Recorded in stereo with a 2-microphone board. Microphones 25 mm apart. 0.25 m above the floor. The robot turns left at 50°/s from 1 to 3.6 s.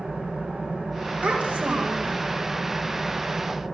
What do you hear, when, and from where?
0.0 s an engine running: 50° right, 6.5 m; by 3.7 s straight behind, 6.5 m
1.2 s a child speaking: 60° right, 8 m; by 2.2 s 105° right, 8 m